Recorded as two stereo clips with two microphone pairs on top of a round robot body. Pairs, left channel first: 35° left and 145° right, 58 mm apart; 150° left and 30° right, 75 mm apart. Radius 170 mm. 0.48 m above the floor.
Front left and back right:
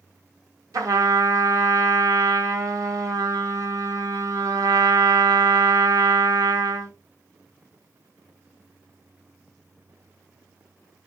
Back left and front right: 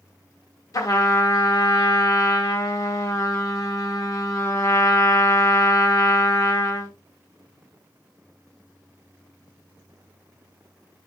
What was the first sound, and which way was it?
A trumpet, 165° right.